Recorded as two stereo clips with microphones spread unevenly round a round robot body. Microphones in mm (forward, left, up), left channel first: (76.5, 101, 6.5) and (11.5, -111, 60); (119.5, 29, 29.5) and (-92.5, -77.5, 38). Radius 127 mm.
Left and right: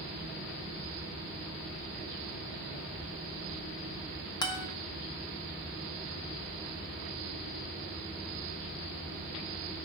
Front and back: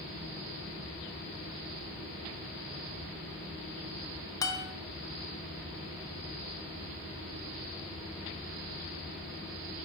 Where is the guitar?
85° left, 0.7 m.